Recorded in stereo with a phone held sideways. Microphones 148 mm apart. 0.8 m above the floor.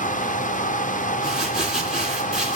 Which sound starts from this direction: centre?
Crumpling, at 1.2 s.